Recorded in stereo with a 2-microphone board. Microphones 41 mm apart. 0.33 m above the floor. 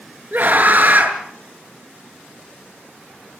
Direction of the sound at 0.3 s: 45° right (ahead or behind).